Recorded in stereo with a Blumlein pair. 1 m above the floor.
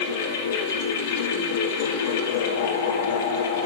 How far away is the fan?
About 2 m.